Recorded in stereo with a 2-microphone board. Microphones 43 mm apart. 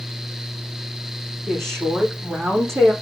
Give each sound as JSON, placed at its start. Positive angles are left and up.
{"t": 1.5, "sound": "a woman speaking", "side_deg": -85, "distance_m": 8.5}